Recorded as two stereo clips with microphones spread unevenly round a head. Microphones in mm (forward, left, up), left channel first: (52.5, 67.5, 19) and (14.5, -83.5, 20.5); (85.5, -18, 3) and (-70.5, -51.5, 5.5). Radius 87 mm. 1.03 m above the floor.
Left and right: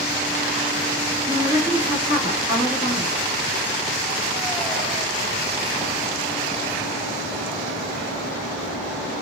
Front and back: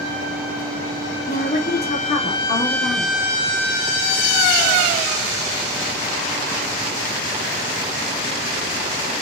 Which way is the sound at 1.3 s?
35° right.